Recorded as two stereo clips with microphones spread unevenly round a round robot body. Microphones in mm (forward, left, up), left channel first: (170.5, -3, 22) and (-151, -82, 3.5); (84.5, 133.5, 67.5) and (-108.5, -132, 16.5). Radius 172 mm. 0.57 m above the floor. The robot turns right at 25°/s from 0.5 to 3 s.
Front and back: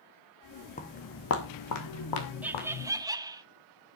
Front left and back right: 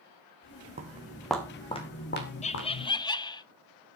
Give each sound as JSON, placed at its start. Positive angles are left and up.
{"t": 0.8, "sound": "footsteps", "azimuth_deg": -55, "distance_m": 1.9}
{"t": 2.4, "sound": "laughter", "azimuth_deg": 120, "distance_m": 0.7}